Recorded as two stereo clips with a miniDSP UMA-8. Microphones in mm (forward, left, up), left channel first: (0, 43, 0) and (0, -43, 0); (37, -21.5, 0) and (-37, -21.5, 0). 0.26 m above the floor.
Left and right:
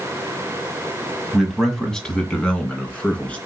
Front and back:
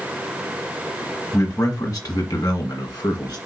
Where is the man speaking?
5° right, 1.3 m; by 3.4 s 15° left, 3 m.